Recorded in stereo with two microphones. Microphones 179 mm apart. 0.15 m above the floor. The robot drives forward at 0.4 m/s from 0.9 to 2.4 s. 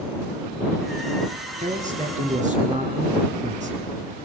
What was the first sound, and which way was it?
A man speaking, 45° right (ahead or behind).